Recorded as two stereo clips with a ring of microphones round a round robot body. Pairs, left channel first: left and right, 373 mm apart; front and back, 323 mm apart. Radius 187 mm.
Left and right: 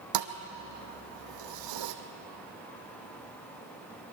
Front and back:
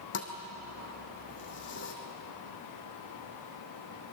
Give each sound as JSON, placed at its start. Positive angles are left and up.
{"t": 0.1, "sound": "a thud", "azimuth_deg": -60, "distance_m": 1.7}